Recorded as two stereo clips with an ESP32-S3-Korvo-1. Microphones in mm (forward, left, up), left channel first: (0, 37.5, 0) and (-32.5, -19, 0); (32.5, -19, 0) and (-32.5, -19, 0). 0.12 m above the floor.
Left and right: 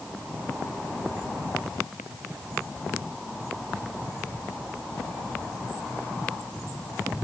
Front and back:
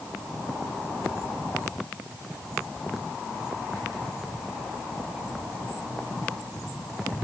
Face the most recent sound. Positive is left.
No sound to turn to.